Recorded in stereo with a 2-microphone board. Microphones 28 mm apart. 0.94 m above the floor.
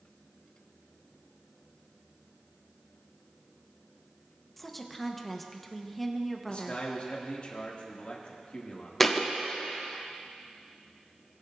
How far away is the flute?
No flute in this recording.